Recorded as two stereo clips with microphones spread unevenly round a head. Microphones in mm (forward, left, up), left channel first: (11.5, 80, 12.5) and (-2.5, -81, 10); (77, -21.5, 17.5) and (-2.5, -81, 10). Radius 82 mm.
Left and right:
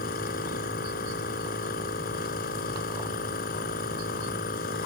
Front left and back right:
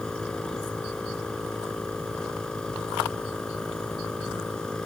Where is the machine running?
120° left.